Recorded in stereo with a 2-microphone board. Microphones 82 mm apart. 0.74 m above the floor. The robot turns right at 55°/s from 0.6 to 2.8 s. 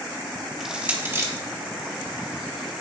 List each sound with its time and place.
0.6 s crushing: 5° right (ahead or behind), 1.4 m; by 1.3 s 40° right (ahead or behind), 1.4 m